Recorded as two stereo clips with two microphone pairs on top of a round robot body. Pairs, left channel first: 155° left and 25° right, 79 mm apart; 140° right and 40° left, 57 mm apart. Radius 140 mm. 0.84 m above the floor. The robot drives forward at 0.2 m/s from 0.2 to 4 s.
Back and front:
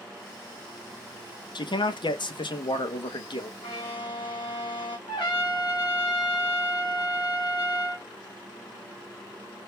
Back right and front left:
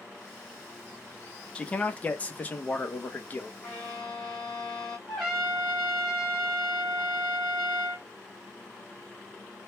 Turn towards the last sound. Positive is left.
turn(degrees=135)